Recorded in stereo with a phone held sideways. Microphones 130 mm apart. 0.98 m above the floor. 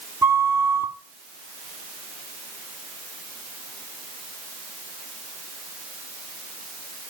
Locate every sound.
0.2 s a flute: 20° right (ahead or behind), 1.3 m